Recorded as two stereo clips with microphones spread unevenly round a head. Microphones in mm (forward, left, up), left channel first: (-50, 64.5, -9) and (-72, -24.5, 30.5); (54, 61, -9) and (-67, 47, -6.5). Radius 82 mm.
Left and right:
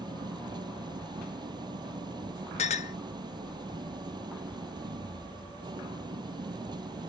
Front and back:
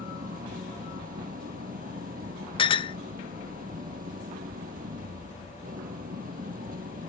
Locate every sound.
0.0 s an engine running: 140° right
2.6 s a clink: 55° left